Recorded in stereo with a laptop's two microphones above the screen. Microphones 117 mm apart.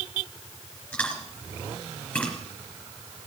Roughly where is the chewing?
Centre.